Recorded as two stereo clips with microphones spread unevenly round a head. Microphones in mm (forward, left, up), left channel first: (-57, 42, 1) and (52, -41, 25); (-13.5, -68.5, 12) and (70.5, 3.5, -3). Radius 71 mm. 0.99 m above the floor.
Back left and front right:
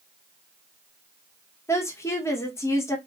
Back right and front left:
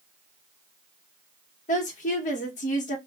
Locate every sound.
1.7 s a woman speaking: 150° right, 1.1 m